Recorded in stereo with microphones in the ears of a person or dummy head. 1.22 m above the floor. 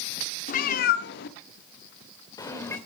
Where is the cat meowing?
50° left (ahead or behind), 1.4 m; by 2.8 s 20° left (ahead or behind), 2.5 m.